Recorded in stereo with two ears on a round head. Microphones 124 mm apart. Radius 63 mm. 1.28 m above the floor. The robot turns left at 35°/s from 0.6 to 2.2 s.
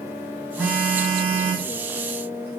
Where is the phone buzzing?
Straight ahead, 1.9 m; by 2.5 s 55° right, 1.9 m.